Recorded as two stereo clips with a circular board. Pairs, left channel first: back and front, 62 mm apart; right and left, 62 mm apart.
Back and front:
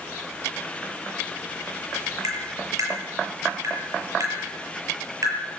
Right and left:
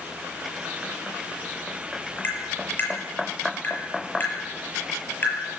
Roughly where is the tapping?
Ahead right.